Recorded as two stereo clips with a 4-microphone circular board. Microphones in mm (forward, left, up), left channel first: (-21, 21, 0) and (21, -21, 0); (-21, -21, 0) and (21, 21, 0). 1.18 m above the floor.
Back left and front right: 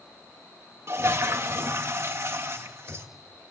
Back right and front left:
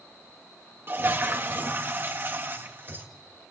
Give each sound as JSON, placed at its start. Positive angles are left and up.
{"t": 0.9, "sound": "a toilet flushing", "azimuth_deg": -5, "distance_m": 1.9}